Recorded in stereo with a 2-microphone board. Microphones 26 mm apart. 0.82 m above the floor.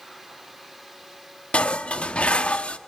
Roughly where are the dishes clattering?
Left.